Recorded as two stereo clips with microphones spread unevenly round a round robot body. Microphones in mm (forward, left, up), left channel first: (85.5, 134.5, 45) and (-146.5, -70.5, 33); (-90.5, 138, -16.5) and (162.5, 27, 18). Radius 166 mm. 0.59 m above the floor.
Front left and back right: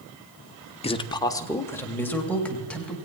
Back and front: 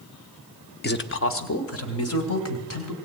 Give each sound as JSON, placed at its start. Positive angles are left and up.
{"t": 0.8, "sound": "a man speaking", "azimuth_deg": 110, "distance_m": 1.0}